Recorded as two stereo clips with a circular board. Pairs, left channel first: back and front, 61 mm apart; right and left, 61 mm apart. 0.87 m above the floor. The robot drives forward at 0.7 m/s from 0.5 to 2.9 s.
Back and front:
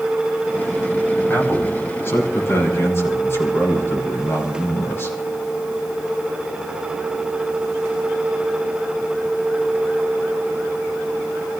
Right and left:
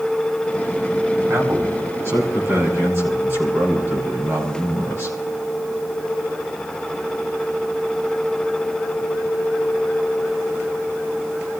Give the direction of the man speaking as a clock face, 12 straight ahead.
8 o'clock.